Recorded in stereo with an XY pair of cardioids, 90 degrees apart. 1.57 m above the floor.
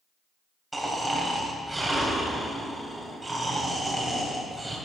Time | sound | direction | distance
0.7 | snoring | 15° right | 3.5 m